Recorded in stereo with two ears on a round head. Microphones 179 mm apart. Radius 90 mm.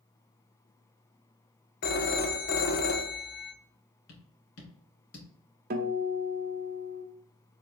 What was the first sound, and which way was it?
A phone ringing, 50° left (ahead or behind).